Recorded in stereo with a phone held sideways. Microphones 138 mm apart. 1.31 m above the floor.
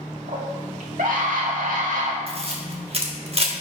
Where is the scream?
70° right (ahead or behind), 2 m; by 2.2 s 65° right (ahead or behind), 2 m.